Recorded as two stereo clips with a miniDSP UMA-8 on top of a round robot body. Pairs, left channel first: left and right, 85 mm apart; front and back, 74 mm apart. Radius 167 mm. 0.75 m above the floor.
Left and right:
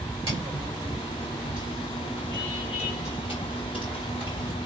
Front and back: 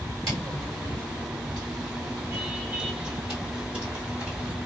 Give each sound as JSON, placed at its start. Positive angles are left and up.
{"t": 0.3, "sound": "footsteps", "azimuth_deg": -140, "distance_m": 0.9}